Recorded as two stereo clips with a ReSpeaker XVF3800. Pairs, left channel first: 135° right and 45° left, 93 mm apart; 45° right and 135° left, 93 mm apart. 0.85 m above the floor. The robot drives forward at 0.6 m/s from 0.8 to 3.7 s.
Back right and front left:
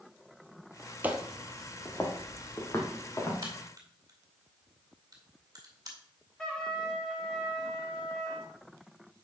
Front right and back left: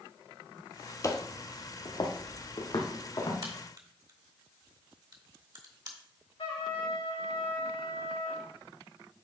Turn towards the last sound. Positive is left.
turn(degrees=-55)